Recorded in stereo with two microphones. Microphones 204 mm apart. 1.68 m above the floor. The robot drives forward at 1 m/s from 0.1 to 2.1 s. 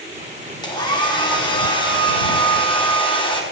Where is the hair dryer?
20° left (ahead or behind), 8.5 m; by 3.4 s 25° left (ahead or behind), 7 m.